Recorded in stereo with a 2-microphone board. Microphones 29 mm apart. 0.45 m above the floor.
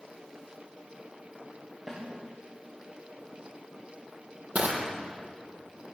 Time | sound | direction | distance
1.9 | a snare drum | 15° right (ahead or behind) | 9 m
4.5 | crushing | 60° right (ahead or behind) | 4 m